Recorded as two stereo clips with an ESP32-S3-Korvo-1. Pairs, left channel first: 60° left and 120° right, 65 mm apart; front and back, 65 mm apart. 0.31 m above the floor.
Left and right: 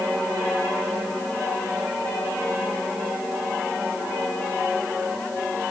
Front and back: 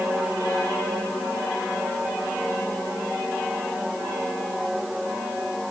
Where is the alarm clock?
No alarm clock in this recording.